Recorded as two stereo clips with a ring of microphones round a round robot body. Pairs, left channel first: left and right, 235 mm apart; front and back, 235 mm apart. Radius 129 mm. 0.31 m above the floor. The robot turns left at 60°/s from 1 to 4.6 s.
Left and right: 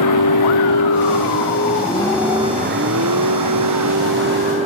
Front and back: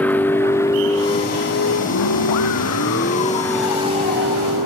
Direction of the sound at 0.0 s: 85° left.